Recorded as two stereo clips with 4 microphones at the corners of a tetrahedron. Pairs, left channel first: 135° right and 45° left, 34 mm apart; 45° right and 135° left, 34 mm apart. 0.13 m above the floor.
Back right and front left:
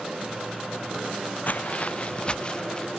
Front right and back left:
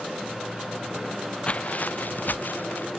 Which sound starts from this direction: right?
Footsteps, at 1.5 s.